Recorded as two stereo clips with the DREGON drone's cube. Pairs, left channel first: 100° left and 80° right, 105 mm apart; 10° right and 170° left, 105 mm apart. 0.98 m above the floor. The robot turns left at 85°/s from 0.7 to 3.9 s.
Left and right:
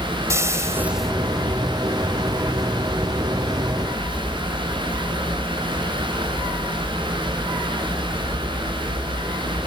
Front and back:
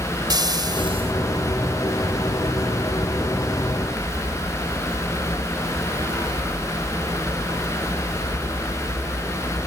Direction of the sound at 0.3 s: 140° right.